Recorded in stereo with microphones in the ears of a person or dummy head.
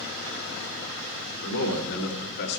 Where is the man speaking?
65° left (ahead or behind), 2.5 m; by 2.6 s 55° left (ahead or behind), 2 m.